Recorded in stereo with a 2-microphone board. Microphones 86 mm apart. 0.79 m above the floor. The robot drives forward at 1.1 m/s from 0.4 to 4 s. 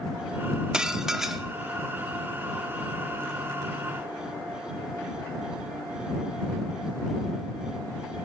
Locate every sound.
0.7 s dishes clattering: 10° right (ahead or behind), 0.7 m; by 1.4 s 5° right (ahead or behind), 1.5 m